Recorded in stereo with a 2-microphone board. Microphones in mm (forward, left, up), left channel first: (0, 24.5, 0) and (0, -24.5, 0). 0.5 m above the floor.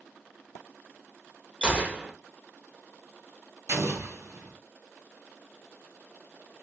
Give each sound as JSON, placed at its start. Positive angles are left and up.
{"t": 1.6, "sound": "a gunshot", "side_deg": -20, "distance_m": 1.0}
{"t": 3.7, "sound": "an explosion", "side_deg": -75, "distance_m": 1.3}